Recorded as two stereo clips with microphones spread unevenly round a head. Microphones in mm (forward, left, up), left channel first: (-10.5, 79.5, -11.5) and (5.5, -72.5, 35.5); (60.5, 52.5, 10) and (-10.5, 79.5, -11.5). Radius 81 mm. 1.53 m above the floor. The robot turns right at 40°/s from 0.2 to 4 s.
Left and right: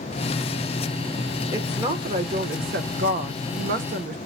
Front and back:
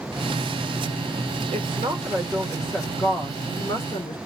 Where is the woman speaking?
150° right, 1.0 m; by 4.2 s 50° right, 1.0 m.